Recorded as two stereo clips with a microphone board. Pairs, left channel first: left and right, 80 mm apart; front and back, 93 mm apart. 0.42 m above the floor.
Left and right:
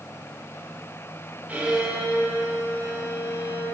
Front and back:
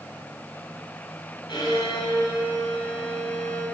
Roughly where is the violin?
Ahead.